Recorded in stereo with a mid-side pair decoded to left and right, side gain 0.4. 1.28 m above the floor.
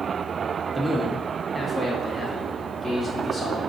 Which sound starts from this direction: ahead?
A man speaking, at 0.8 s.